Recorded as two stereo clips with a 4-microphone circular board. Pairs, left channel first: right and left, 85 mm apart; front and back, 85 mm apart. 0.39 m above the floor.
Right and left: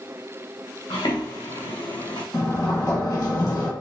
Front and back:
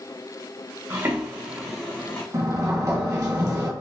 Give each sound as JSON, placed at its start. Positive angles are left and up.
{"t": 0.9, "sound": "footsteps", "azimuth_deg": -120, "distance_m": 2.5}
{"t": 2.3, "sound": "a sliding door", "azimuth_deg": -130, "distance_m": 1.6}